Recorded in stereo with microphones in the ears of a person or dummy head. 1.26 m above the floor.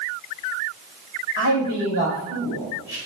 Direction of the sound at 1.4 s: 50° left (ahead or behind).